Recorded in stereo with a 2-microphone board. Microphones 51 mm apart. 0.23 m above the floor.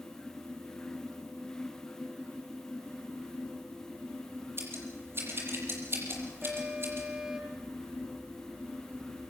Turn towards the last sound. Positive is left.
turn(degrees=-20)  # may be behind; listen again after turning